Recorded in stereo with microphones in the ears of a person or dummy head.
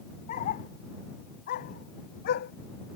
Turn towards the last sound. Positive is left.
turn(degrees=65)  # may be behind; listen again after turning